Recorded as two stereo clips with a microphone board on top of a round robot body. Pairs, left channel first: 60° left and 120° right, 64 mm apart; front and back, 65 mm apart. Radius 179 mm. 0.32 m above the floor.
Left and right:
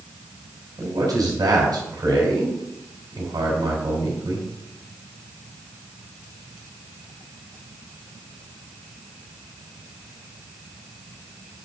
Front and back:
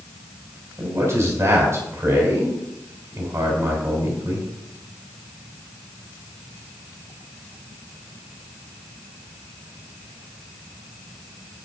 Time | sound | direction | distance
0.8 | a man speaking | 135° right | 4 m